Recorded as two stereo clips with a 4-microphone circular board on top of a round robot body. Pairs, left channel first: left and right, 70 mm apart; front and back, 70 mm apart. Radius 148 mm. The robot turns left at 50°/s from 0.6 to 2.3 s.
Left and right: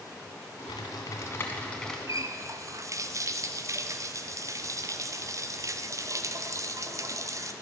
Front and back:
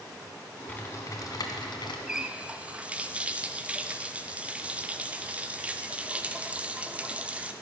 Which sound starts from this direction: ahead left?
Typing on a keyboard, at 0.7 s.